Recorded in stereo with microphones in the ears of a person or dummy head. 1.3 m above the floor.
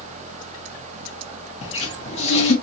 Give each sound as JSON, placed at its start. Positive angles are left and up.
{"t": 1.6, "sound": "a cupboard door", "side_deg": 30, "distance_m": 0.6}